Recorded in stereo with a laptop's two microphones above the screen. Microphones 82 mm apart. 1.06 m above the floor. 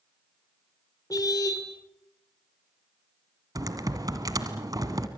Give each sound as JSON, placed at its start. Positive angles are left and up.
{"t": 1.1, "sound": "a car horn", "side_deg": 45, "distance_m": 2.0}
{"t": 3.5, "sound": "typing on a keyboard", "side_deg": -50, "distance_m": 1.7}